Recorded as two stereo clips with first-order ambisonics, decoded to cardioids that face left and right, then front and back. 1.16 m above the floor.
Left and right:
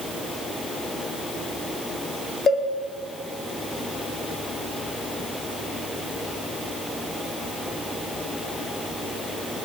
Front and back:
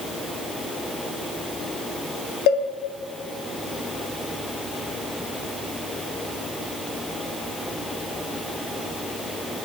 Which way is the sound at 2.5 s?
20° left.